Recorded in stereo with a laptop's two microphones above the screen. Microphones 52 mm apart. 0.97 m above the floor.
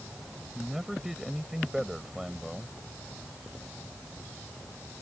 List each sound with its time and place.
0.6 s a man speaking: 5° right (ahead or behind)